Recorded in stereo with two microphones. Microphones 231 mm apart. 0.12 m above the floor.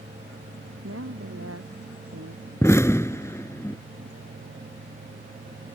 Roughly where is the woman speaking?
Right.